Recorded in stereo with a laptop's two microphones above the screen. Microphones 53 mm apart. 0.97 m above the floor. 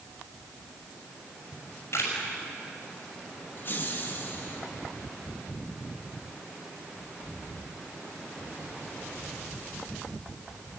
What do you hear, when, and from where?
1.5 s a camera shutter: 65° left (ahead or behind), 5.5 m
3.6 s laughter: 45° left (ahead or behind), 1.8 m